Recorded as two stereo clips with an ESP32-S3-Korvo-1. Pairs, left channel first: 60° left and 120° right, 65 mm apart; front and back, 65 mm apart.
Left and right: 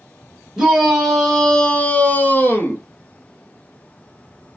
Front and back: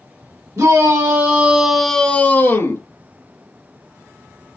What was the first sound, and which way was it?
A shout, 155° left.